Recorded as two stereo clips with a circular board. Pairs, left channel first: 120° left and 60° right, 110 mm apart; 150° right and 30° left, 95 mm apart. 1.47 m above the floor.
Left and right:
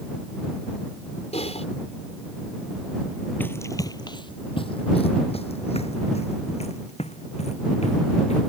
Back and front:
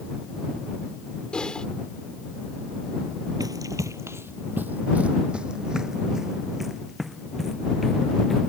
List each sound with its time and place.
1.3 s typing on a keyboard: 130° left
3.4 s running footsteps: 55° left; by 8.5 s 125° left